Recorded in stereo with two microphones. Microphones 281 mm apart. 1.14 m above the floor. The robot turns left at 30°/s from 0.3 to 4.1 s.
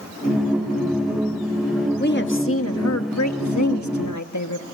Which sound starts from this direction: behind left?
A woman speaking, at 2.0 s.